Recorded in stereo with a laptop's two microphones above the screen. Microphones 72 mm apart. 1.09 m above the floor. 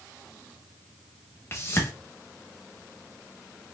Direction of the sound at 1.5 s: 30° left (ahead or behind).